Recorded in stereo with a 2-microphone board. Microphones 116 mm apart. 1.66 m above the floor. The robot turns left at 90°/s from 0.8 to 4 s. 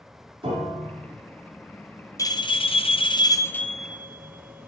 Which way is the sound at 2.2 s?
25° left (ahead or behind).